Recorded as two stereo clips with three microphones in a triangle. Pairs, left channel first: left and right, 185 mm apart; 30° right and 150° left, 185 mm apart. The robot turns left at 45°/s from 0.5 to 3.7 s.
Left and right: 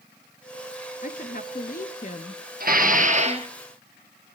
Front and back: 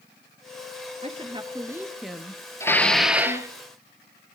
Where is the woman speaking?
110° left, 2 m; by 3.6 s 5° right, 2 m.